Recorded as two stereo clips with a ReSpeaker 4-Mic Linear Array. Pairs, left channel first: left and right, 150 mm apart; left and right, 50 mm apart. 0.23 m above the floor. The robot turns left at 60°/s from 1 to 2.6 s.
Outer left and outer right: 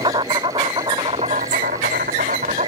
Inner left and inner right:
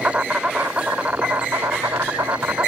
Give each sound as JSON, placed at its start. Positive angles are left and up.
{"t": 0.0, "sound": "an insect", "azimuth_deg": -35}